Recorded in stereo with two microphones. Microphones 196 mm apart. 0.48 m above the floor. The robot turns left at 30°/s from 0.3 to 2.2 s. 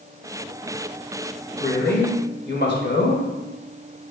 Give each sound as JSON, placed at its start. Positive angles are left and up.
{"t": 1.6, "sound": "a man speaking", "side_deg": 60, "distance_m": 2.5}